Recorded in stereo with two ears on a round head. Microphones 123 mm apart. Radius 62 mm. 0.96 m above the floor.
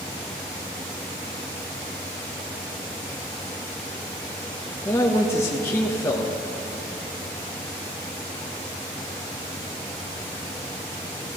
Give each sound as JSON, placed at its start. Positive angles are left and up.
{"t": 4.8, "sound": "a man speaking", "side_deg": 20, "distance_m": 0.9}